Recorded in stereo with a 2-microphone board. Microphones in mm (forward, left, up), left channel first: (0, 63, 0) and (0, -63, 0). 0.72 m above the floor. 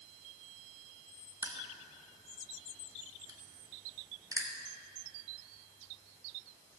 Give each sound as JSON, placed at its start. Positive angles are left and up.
{"t": 1.4, "sound": "crushing", "side_deg": -25, "distance_m": 1.6}